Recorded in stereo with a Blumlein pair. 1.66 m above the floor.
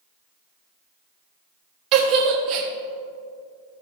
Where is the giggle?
35° right, 1.4 m.